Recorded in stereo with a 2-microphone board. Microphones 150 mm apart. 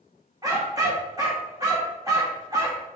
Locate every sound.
0.4 s a dog barking: 25° right (ahead or behind), 2 m